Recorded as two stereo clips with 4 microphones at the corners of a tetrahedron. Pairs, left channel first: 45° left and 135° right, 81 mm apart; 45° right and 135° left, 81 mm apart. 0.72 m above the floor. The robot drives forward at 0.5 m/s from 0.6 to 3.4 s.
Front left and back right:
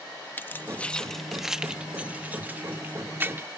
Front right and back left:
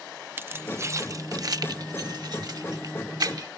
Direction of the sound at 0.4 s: 95° left.